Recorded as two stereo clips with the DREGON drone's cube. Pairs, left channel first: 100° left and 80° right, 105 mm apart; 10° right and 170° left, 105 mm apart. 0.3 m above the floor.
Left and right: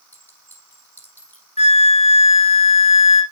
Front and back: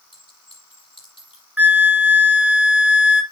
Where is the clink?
30° left, 7 m.